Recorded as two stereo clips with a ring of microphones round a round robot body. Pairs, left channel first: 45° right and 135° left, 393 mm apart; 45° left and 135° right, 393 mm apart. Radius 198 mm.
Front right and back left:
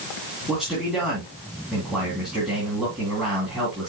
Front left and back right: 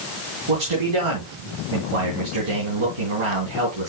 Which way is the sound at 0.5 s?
135° right.